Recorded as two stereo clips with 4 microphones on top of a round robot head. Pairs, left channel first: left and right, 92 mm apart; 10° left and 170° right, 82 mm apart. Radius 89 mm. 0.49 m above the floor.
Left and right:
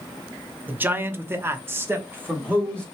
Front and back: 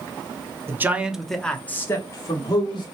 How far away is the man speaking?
About 1.1 m.